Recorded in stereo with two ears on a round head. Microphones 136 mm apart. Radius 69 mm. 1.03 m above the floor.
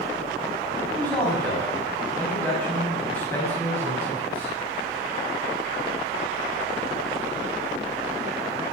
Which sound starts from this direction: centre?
A man speaking, at 1.0 s.